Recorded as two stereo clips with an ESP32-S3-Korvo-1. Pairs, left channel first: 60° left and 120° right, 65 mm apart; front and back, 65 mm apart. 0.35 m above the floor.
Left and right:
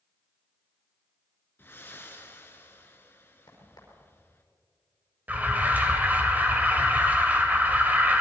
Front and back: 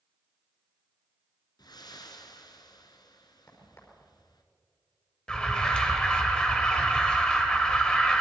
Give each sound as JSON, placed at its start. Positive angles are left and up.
{"t": 1.6, "sound": "breathing", "azimuth_deg": 0, "distance_m": 2.5}
{"t": 3.5, "sound": "a crack", "azimuth_deg": 45, "distance_m": 5.5}
{"t": 5.3, "sound": "an alarm", "azimuth_deg": -70, "distance_m": 2.5}